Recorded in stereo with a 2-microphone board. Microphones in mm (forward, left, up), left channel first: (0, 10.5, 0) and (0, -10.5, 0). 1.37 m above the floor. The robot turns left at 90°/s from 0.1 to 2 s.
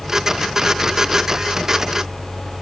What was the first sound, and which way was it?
Only background noise.